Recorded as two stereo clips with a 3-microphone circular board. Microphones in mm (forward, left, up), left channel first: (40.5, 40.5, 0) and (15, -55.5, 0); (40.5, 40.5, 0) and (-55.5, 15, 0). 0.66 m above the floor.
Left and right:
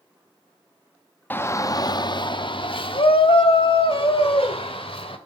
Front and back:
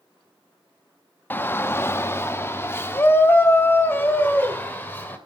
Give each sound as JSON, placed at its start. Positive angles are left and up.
{"t": 1.3, "sound": "a shout", "azimuth_deg": 45, "distance_m": 0.5}